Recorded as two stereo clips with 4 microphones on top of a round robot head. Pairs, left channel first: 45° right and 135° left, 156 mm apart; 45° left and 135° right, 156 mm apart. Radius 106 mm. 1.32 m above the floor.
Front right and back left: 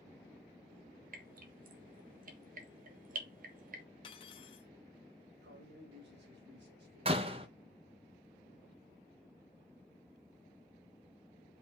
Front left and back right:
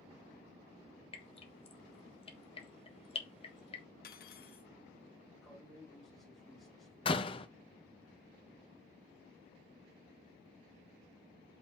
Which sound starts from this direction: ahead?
Cutlery clinking, at 4.0 s.